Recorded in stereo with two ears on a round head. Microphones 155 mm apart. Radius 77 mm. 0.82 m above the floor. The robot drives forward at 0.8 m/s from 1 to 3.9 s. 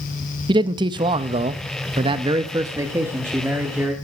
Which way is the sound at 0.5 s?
25° right (ahead or behind).